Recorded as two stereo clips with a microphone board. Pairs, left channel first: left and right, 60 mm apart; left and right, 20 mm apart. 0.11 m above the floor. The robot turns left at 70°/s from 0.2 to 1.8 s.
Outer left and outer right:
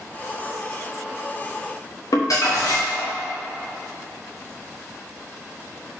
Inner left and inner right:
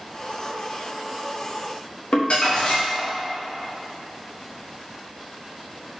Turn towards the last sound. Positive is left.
turn(degrees=65)  # may be behind; listen again after turning